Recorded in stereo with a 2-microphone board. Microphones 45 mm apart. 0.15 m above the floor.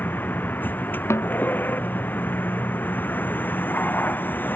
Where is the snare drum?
85° left.